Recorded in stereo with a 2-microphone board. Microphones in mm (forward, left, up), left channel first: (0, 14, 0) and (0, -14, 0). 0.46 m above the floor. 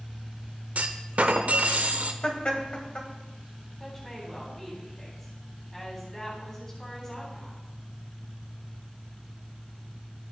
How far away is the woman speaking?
About 3.5 m.